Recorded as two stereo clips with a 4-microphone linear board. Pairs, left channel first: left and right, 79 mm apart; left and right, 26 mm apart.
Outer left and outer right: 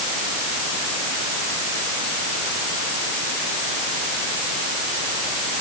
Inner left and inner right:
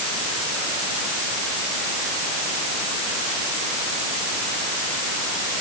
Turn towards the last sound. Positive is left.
No sound to turn to.